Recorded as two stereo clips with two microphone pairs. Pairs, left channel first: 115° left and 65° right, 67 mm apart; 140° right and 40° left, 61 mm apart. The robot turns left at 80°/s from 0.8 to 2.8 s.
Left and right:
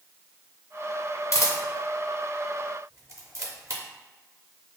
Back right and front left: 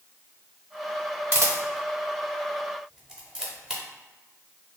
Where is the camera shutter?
85° left, 0.6 m; by 3.8 s 35° right, 0.6 m.